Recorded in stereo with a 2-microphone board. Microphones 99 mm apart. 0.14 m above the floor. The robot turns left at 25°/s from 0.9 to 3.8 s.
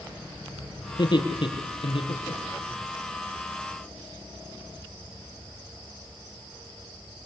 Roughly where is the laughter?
Left.